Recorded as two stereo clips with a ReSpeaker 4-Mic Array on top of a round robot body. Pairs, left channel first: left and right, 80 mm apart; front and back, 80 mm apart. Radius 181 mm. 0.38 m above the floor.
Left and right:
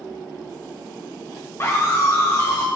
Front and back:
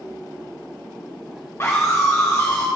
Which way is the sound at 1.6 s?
45° left.